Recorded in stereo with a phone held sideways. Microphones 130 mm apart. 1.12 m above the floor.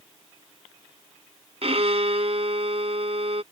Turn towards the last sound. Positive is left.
turn(degrees=-55)  # may be behind; listen again after turning